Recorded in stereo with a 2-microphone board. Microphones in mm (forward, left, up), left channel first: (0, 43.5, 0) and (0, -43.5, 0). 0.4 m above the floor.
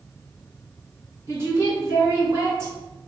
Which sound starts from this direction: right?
A woman speaking, at 1.3 s.